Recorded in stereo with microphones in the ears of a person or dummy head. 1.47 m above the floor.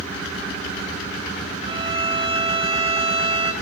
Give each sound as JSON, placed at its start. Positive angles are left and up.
{"t": 1.7, "sound": "a violin", "side_deg": -30, "distance_m": 1.4}